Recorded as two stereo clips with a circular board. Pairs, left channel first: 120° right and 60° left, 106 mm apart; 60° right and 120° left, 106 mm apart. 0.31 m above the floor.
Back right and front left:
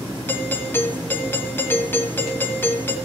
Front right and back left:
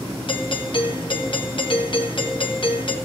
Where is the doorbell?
55° right, 2 m.